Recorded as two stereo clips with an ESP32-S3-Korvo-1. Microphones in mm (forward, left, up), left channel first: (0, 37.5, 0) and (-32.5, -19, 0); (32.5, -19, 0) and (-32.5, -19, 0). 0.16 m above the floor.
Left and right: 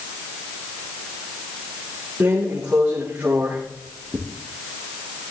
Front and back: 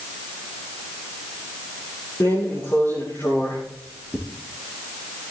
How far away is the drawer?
About 9 m.